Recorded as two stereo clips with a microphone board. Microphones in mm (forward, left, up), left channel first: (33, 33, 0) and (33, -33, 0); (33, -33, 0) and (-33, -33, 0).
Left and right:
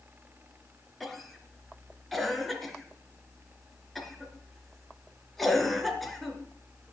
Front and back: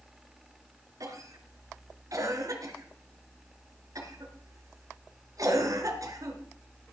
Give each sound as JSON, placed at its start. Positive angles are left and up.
{"t": 1.0, "sound": "a cough", "azimuth_deg": 175, "distance_m": 3.0}